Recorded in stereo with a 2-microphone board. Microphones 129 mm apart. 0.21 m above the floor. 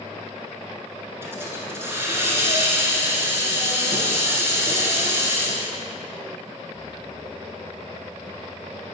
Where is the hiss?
20° right (ahead or behind), 1.2 m.